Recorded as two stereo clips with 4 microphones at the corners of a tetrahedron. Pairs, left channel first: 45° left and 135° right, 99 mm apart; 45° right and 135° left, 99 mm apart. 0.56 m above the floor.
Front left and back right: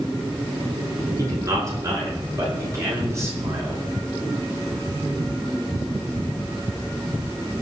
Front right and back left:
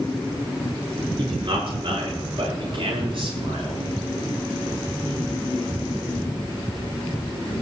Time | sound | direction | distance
1.2 | a man speaking | 170° left | 8 m